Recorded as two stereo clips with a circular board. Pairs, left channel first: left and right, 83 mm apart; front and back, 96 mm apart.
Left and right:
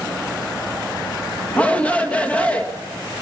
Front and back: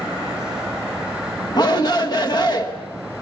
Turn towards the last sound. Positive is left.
turn(degrees=20)